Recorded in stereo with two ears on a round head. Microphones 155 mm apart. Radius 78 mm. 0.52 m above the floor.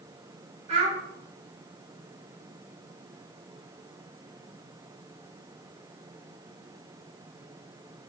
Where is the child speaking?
40° right (ahead or behind), 2 m.